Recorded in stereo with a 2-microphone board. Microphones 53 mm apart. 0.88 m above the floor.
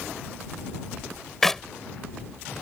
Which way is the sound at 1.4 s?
5° left (ahead or behind).